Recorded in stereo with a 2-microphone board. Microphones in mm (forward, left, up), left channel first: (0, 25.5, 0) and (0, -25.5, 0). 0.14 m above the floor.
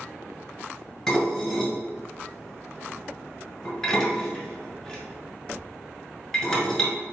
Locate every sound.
1.1 s dishes clattering: 5° left (ahead or behind), 1.4 m